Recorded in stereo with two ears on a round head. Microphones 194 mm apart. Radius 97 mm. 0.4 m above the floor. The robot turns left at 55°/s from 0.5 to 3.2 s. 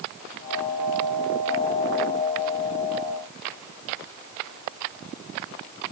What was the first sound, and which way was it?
Only background noise.